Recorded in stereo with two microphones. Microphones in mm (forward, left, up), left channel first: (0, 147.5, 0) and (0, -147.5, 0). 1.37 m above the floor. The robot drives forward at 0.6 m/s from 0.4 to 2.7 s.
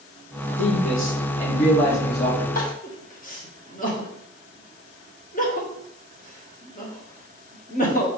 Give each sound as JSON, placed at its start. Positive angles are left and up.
{"t": 0.6, "sound": "a man speaking", "side_deg": 50, "distance_m": 2.0}
{"t": 2.5, "sound": "crying", "side_deg": 30, "distance_m": 1.4}